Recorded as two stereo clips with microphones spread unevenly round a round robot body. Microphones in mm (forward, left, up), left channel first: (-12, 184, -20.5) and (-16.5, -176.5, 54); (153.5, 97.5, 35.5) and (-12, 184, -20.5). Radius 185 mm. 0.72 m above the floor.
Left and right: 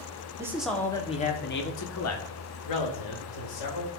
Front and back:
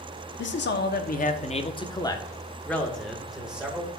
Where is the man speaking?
5° right, 1.4 m; by 3.9 s 75° left, 3 m.